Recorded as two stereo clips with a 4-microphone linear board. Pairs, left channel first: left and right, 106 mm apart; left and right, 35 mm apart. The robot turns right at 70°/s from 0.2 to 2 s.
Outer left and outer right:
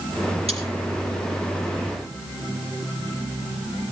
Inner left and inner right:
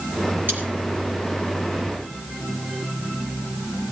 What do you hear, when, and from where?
0.5 s cutlery clinking: 65° right (ahead or behind), 6.5 m; by 0.6 s 55° right (ahead or behind), 6.5 m